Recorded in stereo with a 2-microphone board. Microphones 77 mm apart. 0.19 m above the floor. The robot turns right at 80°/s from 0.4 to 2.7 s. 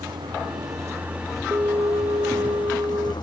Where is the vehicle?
80° right; by 3.2 s 105° left.